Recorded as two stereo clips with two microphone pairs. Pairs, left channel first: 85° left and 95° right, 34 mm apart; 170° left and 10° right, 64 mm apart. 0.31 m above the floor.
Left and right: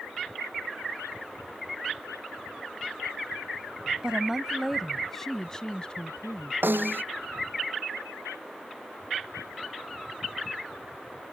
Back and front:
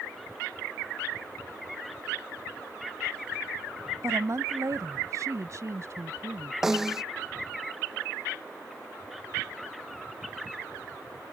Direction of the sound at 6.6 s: 90° right.